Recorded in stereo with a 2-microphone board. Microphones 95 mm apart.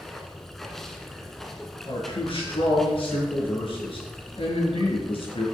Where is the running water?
5° left (ahead or behind), 1.2 m.